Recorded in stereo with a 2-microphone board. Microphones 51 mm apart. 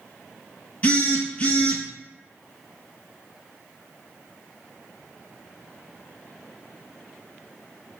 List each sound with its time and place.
0.8 s a phone buzzing: 25° left (ahead or behind), 0.8 m